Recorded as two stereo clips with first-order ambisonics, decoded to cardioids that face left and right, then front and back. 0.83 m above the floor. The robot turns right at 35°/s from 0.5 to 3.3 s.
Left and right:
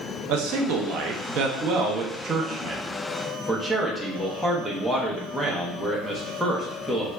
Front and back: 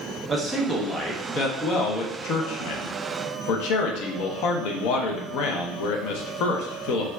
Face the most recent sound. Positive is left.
turn(degrees=5)